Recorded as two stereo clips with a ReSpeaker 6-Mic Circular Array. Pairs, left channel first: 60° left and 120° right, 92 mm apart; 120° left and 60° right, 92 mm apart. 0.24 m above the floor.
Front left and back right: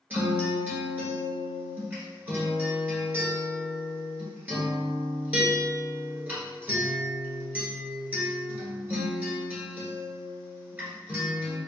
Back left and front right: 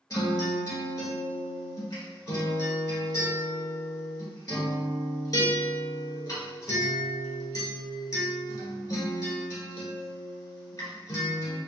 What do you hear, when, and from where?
0.1 s a guitar: 170° left, 1.3 m